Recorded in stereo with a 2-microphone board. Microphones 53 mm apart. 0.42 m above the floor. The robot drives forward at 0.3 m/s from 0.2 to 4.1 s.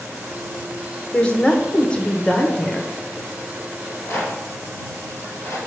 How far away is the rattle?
About 2.5 m.